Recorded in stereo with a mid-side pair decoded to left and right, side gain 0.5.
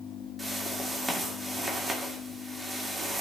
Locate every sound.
0.4 s a whoosh: 15° right, 2 m